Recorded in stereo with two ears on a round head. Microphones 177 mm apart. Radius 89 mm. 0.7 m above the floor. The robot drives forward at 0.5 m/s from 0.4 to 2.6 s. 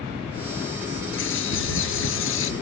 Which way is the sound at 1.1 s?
65° left (ahead or behind).